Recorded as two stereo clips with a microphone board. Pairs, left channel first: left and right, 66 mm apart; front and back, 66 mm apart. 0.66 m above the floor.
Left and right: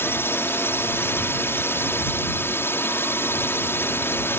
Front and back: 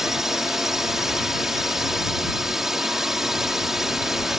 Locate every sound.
0.0 s a drone: 100° left